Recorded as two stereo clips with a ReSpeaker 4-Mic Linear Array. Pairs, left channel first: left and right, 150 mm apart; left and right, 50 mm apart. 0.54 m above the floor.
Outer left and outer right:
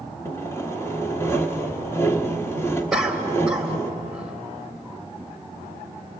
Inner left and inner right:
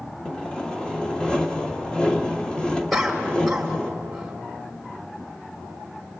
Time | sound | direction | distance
0.2 | sawing | 20° left (ahead or behind) | 1.3 m
2.9 | a cough | 5° right (ahead or behind) | 2.5 m